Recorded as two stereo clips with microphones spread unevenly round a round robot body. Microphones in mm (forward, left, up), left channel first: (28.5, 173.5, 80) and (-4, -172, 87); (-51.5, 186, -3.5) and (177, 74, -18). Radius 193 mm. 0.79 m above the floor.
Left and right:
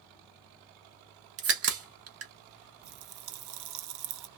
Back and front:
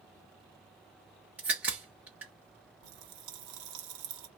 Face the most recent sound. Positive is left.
turn(degrees=-55)